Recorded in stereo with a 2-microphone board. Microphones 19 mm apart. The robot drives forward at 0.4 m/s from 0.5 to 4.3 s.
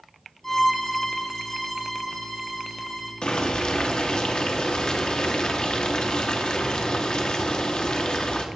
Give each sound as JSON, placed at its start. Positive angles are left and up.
{"t": 0.4, "sound": "a violin", "side_deg": 15, "distance_m": 1.3}
{"t": 3.2, "sound": "boiling", "side_deg": 50, "distance_m": 1.0}